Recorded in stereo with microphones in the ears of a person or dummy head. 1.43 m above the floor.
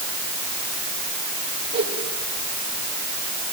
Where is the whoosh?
35° right (ahead or behind), 4.5 m.